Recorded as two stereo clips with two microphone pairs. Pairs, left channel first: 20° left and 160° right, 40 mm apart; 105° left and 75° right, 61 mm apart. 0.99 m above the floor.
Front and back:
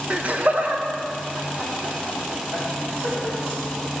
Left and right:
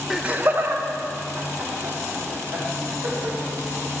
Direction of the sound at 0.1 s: 150° right.